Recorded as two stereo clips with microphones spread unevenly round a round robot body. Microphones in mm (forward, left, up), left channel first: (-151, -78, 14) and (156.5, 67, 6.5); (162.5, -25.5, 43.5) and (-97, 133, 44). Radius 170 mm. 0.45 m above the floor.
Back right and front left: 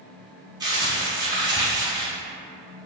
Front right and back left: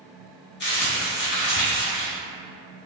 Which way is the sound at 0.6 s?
45° right.